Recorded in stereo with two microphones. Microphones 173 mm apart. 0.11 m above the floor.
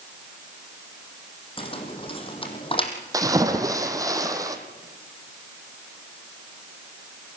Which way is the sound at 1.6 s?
30° left (ahead or behind).